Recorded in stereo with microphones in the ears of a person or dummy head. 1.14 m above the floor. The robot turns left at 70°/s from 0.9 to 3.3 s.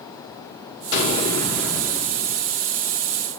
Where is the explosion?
45° left, 5 m; by 2.6 s 70° right, 5 m.